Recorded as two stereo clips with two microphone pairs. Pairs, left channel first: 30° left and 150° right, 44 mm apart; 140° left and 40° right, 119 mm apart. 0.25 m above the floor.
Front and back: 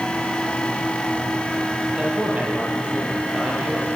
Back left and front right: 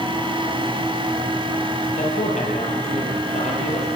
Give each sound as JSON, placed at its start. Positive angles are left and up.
{"t": 2.0, "sound": "a man speaking", "azimuth_deg": 145, "distance_m": 8.5}